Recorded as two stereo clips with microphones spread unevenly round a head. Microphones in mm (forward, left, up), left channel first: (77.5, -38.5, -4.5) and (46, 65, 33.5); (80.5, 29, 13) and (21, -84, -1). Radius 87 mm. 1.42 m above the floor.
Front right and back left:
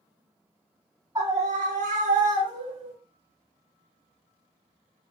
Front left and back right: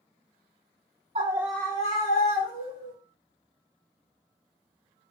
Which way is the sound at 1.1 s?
Straight behind.